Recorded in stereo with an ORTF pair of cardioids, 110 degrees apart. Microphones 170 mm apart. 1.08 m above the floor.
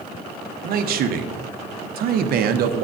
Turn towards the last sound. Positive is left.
turn(degrees=-60)